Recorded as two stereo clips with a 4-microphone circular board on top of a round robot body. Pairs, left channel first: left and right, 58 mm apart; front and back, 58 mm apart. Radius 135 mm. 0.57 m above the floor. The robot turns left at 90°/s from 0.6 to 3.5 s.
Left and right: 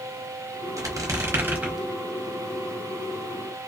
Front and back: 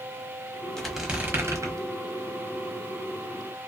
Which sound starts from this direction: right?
A squeak, at 0.8 s.